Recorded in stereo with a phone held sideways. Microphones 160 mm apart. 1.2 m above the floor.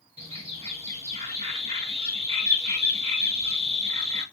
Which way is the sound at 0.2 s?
40° right (ahead or behind).